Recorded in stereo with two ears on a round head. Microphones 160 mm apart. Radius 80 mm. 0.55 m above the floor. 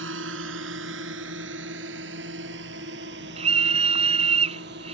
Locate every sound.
0.0 s a drone: 80° right; by 4.9 s 65° right (ahead or behind)
3.4 s a scream: 35° right (ahead or behind)